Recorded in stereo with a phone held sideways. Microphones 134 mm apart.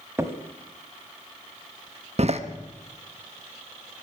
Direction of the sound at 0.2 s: 20° right (ahead or behind).